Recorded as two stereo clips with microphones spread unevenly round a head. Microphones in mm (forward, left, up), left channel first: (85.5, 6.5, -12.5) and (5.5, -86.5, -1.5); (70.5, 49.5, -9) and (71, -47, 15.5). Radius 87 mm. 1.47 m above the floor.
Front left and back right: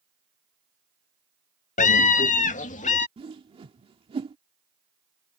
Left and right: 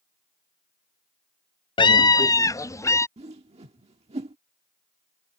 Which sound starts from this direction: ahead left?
A scream, at 1.8 s.